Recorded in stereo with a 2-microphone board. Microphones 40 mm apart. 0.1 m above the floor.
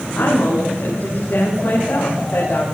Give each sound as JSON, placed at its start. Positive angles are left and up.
{"t": 0.1, "sound": "a woman speaking", "side_deg": 55, "distance_m": 8.5}